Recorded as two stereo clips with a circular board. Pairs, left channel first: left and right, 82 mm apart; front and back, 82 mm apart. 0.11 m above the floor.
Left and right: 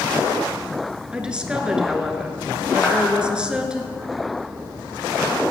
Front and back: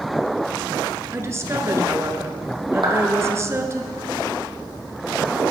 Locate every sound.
1.1 s a woman speaking: 160° right, 1.3 m
2.8 s a clap: 165° left, 3.5 m